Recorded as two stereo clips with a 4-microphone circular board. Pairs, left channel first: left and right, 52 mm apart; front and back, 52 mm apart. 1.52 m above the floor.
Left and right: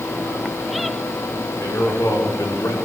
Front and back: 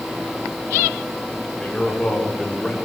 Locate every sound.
1.6 s a man speaking: 75° left, 5.5 m; by 2.8 s 80° left, 4.5 m